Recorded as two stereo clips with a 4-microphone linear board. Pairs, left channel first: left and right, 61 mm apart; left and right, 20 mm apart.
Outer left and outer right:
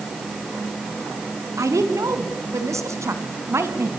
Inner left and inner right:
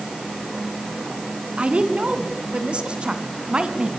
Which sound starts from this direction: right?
A woman speaking, at 1.6 s.